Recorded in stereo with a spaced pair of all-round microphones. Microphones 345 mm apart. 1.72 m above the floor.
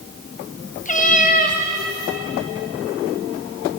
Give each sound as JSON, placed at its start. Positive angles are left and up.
{"t": 0.8, "sound": "a cat meowing", "side_deg": 25, "distance_m": 1.0}